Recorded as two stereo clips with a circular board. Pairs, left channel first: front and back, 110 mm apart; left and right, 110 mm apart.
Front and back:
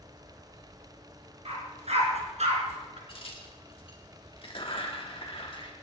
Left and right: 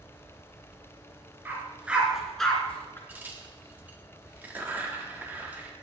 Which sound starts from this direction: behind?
A dog barking, at 1.4 s.